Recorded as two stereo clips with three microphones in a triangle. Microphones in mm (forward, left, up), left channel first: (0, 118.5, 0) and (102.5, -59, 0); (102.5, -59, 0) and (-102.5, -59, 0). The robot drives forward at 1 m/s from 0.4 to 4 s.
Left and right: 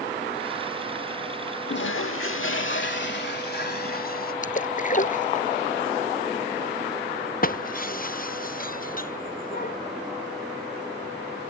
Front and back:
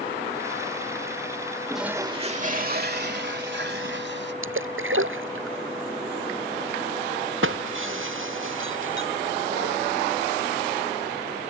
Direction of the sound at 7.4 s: 165° left.